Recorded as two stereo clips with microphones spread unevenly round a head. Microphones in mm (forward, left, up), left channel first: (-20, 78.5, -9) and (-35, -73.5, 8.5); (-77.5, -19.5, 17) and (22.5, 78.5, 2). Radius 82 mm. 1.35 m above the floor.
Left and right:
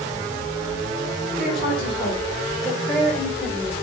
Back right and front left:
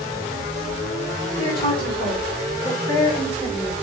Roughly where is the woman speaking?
Behind.